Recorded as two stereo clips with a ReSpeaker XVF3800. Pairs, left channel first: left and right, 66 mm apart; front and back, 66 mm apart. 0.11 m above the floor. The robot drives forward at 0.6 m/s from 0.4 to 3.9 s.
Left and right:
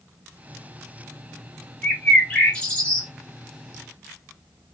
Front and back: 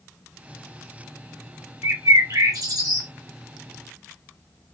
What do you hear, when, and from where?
1.8 s a bird: 160° left, 1.1 m; by 3.1 s 165° left, 1.8 m